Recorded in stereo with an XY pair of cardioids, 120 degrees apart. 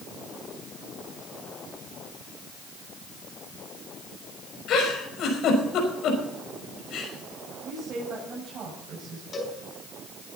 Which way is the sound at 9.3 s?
40° left.